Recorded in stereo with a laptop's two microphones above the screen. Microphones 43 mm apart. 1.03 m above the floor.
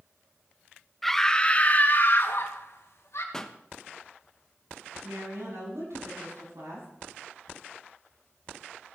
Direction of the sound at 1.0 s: Centre (ahead or behind).